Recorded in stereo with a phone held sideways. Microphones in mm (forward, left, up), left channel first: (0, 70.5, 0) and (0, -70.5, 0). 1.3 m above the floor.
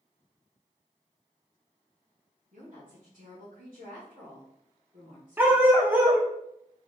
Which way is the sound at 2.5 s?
75° right (ahead or behind).